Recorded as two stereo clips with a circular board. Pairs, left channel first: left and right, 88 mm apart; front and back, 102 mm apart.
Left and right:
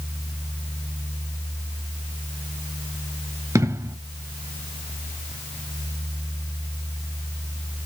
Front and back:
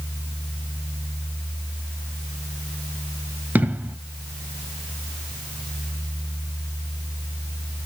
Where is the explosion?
115° right, 0.7 m.